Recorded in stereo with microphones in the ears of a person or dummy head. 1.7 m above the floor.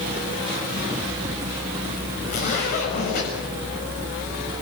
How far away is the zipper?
About 7 m.